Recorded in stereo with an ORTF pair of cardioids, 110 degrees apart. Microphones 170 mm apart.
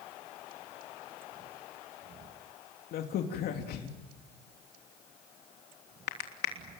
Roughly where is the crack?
Left.